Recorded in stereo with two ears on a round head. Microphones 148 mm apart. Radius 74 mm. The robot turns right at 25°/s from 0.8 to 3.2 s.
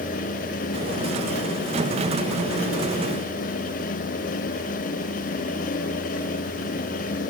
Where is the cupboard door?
I don't hear a cupboard door.